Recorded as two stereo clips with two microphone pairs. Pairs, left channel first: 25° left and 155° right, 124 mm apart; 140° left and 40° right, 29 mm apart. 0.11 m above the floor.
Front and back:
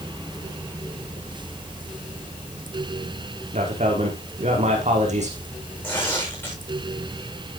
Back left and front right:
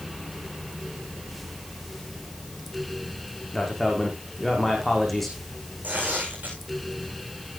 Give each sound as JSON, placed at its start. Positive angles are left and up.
{"t": 3.5, "sound": "a man speaking", "azimuth_deg": -135, "distance_m": 5.0}
{"t": 5.8, "sound": "tearing paper", "azimuth_deg": -45, "distance_m": 8.5}